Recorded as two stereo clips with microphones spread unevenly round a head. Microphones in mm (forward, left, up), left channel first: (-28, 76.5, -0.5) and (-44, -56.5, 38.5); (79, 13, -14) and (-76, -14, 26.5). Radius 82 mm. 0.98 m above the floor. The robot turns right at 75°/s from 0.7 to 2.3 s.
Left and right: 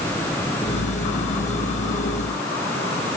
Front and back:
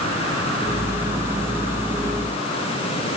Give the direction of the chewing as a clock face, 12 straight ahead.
No chewing in this recording.